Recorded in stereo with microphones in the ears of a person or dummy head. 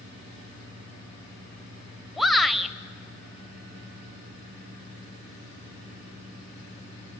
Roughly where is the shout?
Centre.